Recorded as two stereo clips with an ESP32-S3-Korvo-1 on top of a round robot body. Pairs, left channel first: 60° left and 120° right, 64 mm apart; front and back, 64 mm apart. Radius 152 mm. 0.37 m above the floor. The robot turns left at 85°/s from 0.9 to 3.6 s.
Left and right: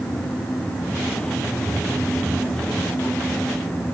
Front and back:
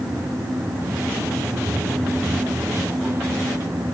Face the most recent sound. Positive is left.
No sound to turn to.